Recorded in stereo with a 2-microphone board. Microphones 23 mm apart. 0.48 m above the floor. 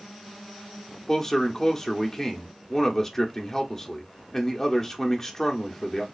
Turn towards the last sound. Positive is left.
turn(degrees=15)  # may be behind; listen again after turning